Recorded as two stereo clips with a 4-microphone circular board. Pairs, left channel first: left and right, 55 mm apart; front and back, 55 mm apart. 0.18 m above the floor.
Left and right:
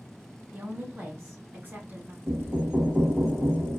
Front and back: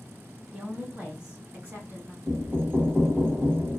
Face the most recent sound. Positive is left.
turn(degrees=-135)